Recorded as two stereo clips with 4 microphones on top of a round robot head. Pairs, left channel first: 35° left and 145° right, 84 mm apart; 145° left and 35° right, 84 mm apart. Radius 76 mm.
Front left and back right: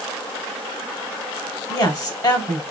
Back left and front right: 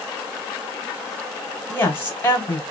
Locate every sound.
1.7 s a woman speaking: 80° left, 1.9 m